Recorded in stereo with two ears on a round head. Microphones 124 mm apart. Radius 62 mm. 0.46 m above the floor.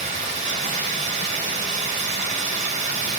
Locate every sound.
0.0 s running water: 50° right (ahead or behind), 2.5 m